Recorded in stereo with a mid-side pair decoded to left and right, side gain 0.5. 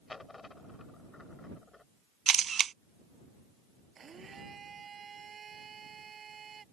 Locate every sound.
0.1 s a dropped coin: 25° left
2.3 s a camera shutter: 40° right
4.0 s a blender: 40° right